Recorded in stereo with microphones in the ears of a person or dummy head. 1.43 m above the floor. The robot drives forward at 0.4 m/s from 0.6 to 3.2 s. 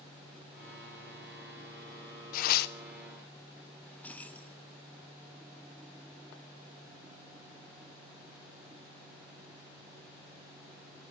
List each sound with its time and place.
2.3 s tearing paper: 50° left (ahead or behind), 0.8 m; by 2.8 s 60° left (ahead or behind), 0.7 m
3.8 s keys jangling: 5° left (ahead or behind), 1.1 m